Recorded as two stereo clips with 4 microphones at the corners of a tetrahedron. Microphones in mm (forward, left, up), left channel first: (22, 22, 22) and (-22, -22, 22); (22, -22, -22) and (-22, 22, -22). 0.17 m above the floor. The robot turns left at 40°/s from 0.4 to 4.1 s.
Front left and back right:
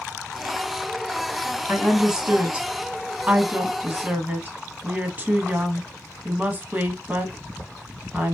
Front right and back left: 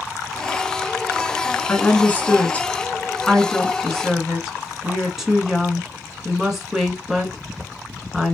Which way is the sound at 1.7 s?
50° right.